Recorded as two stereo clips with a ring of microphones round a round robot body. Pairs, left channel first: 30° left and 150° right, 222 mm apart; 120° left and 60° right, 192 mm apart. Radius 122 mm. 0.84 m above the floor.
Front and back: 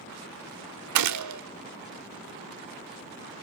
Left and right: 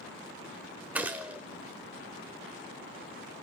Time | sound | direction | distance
0.9 | a gunshot | 145° right | 0.9 m